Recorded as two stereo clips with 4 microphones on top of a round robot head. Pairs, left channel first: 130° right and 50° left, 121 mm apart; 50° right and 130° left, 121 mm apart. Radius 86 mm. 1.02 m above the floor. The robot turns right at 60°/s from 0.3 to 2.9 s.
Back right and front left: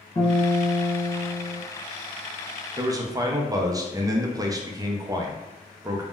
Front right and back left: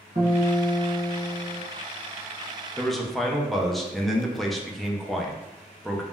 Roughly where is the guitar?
Behind.